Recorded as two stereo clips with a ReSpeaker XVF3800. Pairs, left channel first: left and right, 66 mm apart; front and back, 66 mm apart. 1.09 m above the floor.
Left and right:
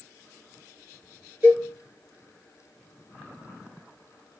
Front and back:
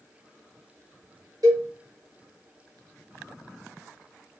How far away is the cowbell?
About 1.2 m.